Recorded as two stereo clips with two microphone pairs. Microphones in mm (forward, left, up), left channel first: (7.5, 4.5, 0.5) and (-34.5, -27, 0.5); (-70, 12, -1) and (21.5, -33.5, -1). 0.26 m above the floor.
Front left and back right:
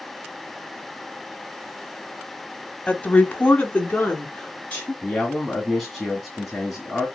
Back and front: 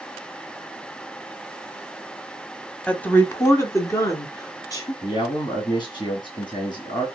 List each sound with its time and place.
2.9 s a woman speaking: 85° left, 1.1 m; by 4.9 s 100° left, 4 m
5.0 s a man speaking: 125° left, 2 m